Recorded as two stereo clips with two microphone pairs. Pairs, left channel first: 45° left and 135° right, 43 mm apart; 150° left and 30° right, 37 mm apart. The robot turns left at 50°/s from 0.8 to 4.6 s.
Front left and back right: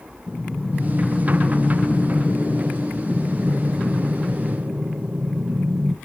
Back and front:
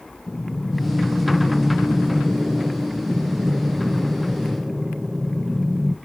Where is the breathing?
85° left, 0.6 m; by 6.0 s 105° right, 0.6 m.